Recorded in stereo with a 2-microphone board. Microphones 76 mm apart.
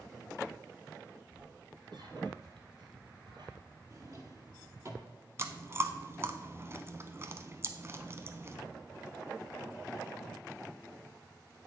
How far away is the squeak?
About 1.6 m.